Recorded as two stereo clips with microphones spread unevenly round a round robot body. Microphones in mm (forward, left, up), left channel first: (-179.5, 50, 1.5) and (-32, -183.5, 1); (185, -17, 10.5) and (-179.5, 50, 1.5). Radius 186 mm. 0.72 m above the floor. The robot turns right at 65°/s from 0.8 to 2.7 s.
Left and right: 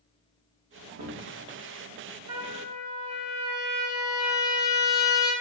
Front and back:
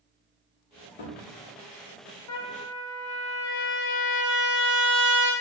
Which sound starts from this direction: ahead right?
A cupboard door, at 0.7 s.